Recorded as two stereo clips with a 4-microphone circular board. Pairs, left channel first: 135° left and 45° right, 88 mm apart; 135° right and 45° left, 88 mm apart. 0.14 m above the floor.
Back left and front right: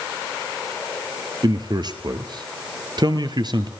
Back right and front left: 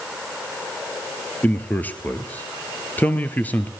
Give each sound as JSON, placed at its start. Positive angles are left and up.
{"t": 1.4, "sound": "a man speaking", "azimuth_deg": -65, "distance_m": 2.0}